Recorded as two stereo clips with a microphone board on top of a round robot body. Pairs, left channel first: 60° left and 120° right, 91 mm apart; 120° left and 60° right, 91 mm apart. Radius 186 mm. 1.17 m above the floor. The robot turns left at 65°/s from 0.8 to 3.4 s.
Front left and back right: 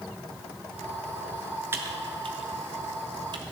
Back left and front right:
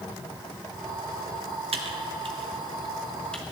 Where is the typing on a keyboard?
55° right, 0.9 m; by 3.4 s 160° right, 0.9 m.